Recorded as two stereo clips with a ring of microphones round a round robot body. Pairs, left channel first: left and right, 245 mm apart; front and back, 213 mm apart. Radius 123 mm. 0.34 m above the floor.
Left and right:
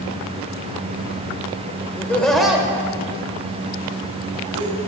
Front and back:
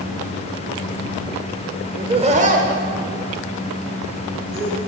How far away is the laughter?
About 0.9 m.